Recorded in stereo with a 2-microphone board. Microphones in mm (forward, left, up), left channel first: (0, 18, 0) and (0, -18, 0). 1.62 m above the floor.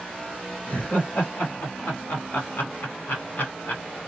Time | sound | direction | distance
0.7 | laughter | 55° left (ahead or behind) | 2 m